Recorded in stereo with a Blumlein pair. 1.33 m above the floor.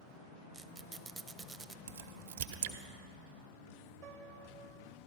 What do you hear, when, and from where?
0.5 s a squeak: 15° right, 0.6 m
1.9 s a crack: 55° right, 1.1 m
4.0 s a piano: 45° right, 0.9 m